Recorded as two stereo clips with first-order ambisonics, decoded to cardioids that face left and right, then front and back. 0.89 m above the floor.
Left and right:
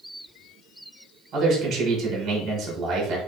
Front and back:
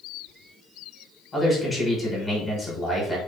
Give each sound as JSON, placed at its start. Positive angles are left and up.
{"t": 1.3, "sound": "a man speaking", "azimuth_deg": -65, "distance_m": 0.9}